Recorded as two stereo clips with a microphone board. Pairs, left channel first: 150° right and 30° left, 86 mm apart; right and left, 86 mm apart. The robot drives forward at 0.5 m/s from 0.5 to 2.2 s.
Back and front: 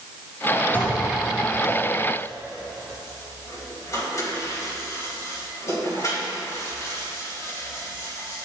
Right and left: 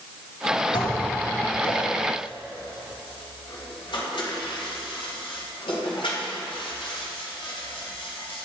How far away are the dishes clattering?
About 2.5 m.